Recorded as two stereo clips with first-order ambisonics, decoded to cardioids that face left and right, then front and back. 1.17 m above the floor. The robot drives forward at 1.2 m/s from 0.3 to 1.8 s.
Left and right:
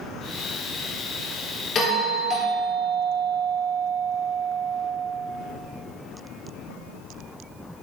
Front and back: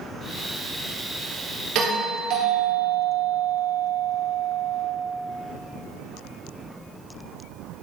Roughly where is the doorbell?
Behind left.